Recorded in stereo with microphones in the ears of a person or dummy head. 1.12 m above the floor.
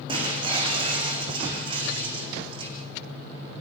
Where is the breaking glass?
30° right (ahead or behind), 9.5 m.